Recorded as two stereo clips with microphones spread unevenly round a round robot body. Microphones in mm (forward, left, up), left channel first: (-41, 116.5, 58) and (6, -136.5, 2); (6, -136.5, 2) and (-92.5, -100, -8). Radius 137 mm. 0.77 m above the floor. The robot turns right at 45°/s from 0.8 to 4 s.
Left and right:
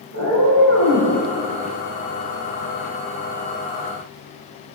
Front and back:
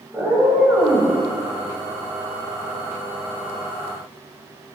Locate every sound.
0.1 s a cat meowing: 125° right, 2.5 m; by 1.1 s 110° right, 2.5 m